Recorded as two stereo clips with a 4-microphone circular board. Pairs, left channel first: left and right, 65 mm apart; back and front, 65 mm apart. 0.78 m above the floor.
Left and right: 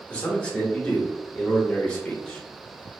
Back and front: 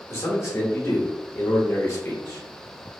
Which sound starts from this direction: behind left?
A man speaking, at 0.1 s.